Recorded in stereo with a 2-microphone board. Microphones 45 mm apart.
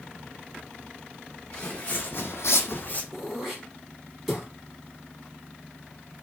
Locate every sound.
1.5 s footsteps: 30° left (ahead or behind), 1.2 m; by 3.0 s 40° left (ahead or behind), 0.8 m
3.1 s throat clearing: 5° right (ahead or behind), 1.8 m